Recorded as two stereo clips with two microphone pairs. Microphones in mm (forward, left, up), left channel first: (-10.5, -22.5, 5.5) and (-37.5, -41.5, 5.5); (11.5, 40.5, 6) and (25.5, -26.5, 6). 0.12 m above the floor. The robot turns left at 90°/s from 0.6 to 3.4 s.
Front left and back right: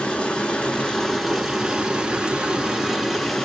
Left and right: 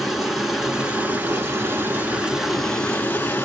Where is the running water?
5° left, 0.9 m; by 3.5 s 115° left, 0.9 m.